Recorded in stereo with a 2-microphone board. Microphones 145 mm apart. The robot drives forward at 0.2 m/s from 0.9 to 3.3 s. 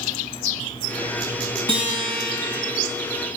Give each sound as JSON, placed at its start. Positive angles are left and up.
{"t": 1.7, "sound": "a guitar", "side_deg": -35, "distance_m": 1.5}